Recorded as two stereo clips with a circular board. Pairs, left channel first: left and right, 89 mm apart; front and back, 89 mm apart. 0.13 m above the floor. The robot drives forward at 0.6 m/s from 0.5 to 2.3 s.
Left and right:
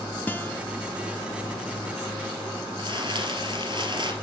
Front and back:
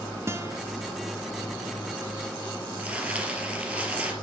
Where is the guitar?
145° left, 1.0 m.